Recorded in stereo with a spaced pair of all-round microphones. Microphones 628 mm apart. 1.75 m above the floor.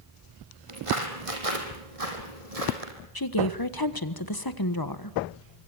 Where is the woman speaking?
35° left (ahead or behind), 1.4 m.